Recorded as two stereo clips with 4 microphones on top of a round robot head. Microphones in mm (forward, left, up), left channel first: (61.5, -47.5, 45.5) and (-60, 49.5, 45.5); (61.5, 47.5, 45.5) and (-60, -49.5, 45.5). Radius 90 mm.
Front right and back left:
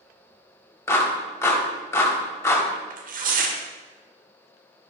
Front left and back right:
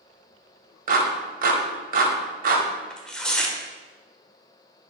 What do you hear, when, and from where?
0.9 s a clap: 110° right, 1.9 m
2.9 s tearing paper: 125° left, 1.5 m